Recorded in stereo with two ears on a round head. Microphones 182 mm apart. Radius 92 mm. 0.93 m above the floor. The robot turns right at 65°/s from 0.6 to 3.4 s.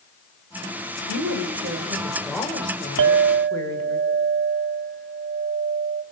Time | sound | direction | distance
1.1 | a woman speaking | 80° right | 4 m
3.0 | a clink | 65° right (ahead or behind) | 0.9 m